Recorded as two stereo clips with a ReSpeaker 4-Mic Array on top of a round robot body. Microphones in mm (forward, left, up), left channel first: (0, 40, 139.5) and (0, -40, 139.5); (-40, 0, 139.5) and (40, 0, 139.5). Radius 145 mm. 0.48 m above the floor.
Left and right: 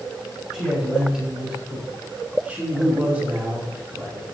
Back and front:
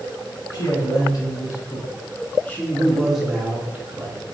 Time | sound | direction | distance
0.5 | a man speaking | 170° right | 1.7 m